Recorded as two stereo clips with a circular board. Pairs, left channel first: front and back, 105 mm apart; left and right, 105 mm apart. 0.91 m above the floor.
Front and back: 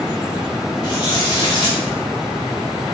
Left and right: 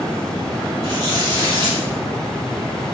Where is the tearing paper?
45° right, 2 m.